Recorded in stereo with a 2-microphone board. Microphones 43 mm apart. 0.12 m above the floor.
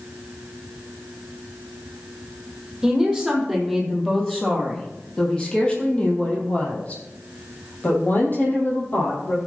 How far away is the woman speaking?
About 4 m.